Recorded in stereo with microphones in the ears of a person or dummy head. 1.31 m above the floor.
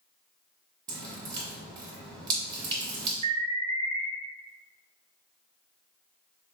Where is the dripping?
20° right (ahead or behind), 1.2 m.